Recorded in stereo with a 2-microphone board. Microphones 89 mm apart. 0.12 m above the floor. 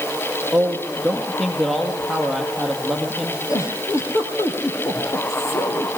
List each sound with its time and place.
0.5 s a man speaking: centre (ahead or behind), 3.5 m
3.5 s a giggle: 35° left (ahead or behind), 4 m